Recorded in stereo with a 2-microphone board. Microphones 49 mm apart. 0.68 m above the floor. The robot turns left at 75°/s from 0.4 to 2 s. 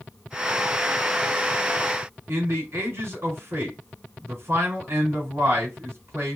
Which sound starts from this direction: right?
A man speaking, at 2.3 s.